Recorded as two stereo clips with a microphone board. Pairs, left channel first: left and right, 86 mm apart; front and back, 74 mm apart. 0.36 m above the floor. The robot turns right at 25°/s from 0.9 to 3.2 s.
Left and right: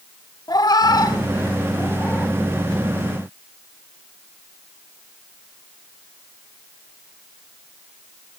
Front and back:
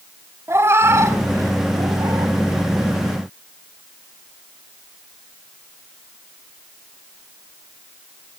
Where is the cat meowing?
125° left, 0.8 m; by 2.4 s 165° left, 0.8 m.